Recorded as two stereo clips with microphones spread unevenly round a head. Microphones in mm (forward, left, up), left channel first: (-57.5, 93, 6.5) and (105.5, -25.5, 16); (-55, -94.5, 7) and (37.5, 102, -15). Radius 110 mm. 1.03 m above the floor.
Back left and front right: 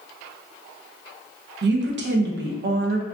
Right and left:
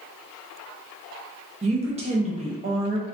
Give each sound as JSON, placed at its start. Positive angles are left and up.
{"t": 1.6, "sound": "a woman speaking", "azimuth_deg": 0, "distance_m": 0.6}